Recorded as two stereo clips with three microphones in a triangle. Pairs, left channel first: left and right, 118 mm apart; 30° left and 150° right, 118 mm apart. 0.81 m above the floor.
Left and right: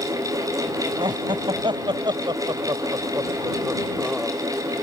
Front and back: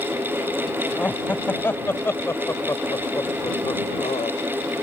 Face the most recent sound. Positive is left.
turn(degrees=0)